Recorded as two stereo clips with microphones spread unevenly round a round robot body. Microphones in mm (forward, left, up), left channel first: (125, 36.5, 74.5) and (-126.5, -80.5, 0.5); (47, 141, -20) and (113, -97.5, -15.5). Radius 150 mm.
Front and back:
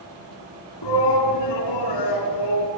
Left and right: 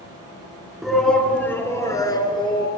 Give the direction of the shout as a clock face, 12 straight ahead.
11 o'clock.